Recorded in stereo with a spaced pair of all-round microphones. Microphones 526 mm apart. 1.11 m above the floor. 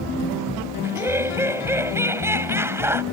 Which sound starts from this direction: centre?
Laughter, at 0.8 s.